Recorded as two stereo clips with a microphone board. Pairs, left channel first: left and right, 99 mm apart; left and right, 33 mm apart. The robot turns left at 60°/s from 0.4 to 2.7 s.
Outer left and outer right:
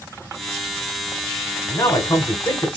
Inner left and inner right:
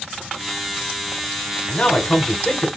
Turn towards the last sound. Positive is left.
turn(degrees=60)